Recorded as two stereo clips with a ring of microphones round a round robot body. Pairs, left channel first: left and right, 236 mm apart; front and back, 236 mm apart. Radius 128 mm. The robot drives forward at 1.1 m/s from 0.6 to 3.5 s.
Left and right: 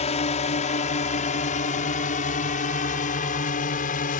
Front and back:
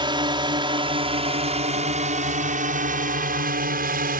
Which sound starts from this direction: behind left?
A drone, at 0.0 s.